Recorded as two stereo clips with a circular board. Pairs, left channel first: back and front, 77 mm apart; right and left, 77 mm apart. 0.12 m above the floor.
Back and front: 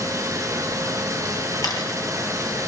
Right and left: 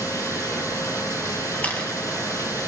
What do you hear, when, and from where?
0.0 s running water: 45° right, 3 m
1.6 s a camera shutter: 155° right, 3.5 m